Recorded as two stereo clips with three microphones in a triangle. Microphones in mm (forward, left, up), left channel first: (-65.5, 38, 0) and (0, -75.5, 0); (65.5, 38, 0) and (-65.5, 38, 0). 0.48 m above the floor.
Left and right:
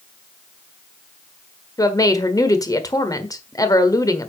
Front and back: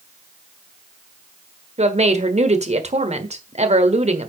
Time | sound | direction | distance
1.8 | a woman speaking | straight behind | 1.4 m